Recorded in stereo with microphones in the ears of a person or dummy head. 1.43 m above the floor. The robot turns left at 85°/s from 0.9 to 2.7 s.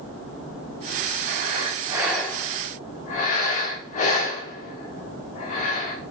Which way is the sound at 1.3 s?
55° right (ahead or behind).